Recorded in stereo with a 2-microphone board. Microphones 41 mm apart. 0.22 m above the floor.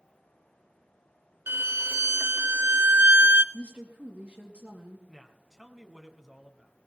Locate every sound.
1.5 s a violin: 65° right (ahead or behind), 0.6 m
3.5 s a woman speaking: 40° right (ahead or behind), 4.5 m
5.1 s a woman speaking: 5° right (ahead or behind), 1.7 m